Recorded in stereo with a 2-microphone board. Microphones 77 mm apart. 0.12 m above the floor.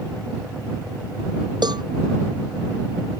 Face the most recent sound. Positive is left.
turn(degrees=-70)  # may be behind; listen again after turning